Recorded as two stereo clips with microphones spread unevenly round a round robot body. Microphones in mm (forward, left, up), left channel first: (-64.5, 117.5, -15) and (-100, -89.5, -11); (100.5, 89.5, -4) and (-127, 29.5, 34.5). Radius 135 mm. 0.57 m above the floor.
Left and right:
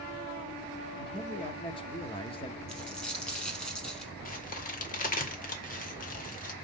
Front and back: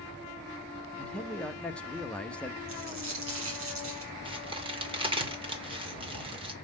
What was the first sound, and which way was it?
A man speaking, 70° left.